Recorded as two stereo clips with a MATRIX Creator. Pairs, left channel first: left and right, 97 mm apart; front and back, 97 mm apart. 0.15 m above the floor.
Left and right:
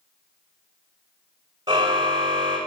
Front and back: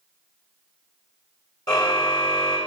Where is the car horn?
45° right, 6.5 m.